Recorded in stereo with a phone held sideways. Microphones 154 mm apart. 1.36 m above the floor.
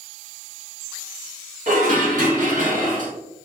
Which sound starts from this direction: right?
Dishes clattering, at 1.7 s.